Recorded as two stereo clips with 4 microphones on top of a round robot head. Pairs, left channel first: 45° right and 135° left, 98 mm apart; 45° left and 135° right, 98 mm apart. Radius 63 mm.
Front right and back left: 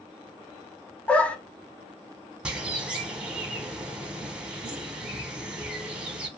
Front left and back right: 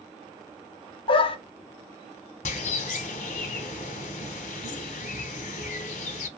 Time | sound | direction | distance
1.1 | a dog barking | 30° left | 0.5 m
2.5 | a bird | 55° left | 0.6 m